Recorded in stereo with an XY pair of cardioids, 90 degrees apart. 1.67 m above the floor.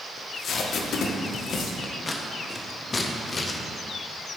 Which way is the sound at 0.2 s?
65° left.